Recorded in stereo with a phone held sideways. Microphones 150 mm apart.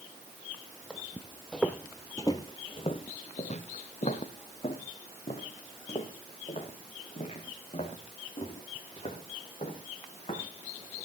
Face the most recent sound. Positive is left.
turn(degrees=40)  # may be behind; listen again after turning